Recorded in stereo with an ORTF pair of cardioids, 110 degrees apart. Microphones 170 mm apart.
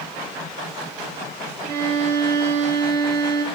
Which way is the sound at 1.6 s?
70° right.